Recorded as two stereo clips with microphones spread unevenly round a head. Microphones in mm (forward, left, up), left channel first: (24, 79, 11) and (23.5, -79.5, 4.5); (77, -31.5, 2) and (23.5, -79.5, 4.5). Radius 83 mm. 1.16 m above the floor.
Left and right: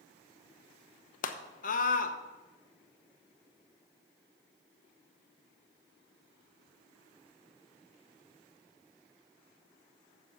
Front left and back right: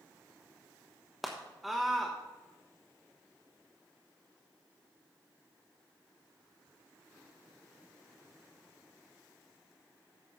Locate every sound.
1.2 s a scream: 130° left, 1.0 m